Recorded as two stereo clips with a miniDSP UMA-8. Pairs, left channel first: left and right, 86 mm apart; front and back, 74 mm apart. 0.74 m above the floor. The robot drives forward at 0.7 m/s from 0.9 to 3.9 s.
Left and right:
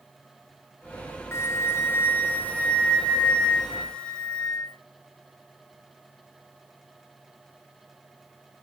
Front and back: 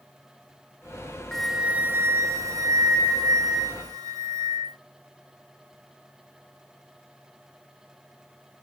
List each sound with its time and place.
1.3 s a flute: 75° left, 0.6 m; by 4.8 s 170° left, 1.8 m